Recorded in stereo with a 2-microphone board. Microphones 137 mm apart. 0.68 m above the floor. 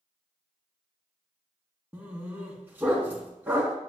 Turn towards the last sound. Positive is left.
turn(degrees=-15)  # may be behind; listen again after turning